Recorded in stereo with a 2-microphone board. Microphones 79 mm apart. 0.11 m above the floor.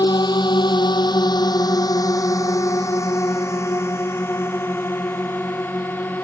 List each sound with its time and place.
0.0 s a drone: 65° left (ahead or behind); by 6.2 s 25° left (ahead or behind)